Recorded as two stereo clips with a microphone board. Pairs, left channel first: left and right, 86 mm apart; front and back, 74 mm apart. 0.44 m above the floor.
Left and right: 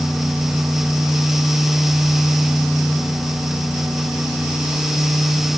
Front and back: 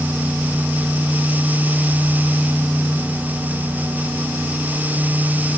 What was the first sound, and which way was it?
Only background noise.